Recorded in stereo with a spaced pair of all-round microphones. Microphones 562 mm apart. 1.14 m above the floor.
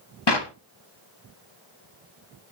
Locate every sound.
0.3 s a clap: 45° left (ahead or behind), 1.2 m